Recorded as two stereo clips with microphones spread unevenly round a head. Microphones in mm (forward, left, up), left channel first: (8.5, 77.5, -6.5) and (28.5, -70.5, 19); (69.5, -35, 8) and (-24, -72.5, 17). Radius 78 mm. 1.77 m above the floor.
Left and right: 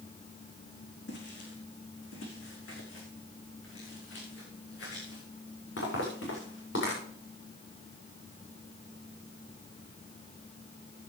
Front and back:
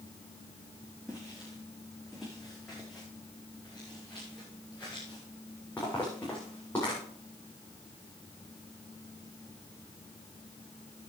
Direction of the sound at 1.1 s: 120° left.